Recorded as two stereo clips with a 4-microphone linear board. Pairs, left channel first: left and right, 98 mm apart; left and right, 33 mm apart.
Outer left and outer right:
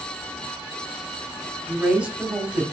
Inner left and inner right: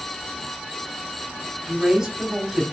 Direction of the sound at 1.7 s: 10° right (ahead or behind).